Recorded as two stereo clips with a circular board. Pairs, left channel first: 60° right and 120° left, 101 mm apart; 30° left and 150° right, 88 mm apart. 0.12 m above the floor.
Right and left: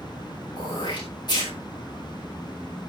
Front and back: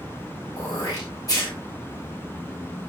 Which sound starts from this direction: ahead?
Throat clearing, at 0.6 s.